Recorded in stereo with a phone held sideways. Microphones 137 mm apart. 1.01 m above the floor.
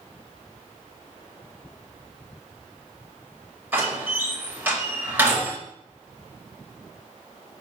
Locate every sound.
3.7 s a door slam: 15° right (ahead or behind), 3.5 m